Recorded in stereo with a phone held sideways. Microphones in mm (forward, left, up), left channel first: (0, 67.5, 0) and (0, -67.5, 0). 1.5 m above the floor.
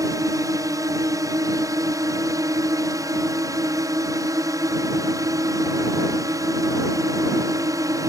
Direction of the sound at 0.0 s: 25° right (ahead or behind).